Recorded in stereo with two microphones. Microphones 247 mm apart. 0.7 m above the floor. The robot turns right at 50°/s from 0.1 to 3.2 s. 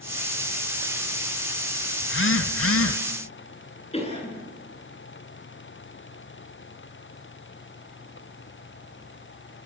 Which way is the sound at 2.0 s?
55° left.